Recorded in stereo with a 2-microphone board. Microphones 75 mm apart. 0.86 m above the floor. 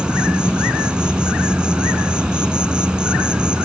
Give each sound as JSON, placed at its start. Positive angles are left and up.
{"t": 0.0, "sound": "an insect", "side_deg": -15}